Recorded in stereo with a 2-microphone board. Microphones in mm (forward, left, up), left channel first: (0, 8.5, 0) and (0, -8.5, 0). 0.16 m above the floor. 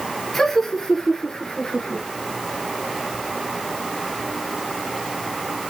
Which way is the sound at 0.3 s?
15° left (ahead or behind).